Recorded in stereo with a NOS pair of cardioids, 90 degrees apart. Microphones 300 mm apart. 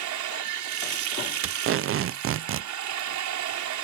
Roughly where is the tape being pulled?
Ahead right.